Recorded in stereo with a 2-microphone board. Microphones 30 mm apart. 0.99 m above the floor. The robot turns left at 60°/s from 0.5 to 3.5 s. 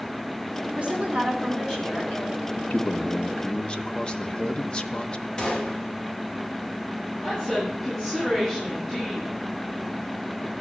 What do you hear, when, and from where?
0.8 s a woman speaking: 130° right, 4 m; by 2.5 s 125° left, 4 m
2.6 s a man speaking: 95° left, 0.9 m; by 5.3 s 40° left, 0.9 m
5.4 s a gunshot: 30° left (ahead or behind), 2 m
7.2 s a woman speaking: 20° left (ahead or behind), 9.5 m